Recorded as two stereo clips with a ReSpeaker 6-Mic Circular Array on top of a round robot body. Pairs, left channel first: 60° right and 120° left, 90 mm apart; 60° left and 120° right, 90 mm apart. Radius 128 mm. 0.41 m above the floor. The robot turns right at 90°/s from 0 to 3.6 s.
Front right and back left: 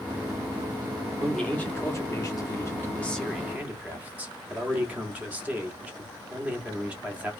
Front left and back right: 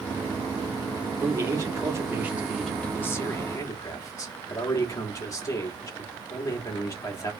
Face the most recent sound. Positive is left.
turn(degrees=60)